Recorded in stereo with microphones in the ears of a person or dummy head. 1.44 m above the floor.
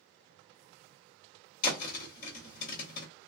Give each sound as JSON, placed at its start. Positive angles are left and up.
{"t": 1.6, "sound": "a thud", "side_deg": 50, "distance_m": 1.5}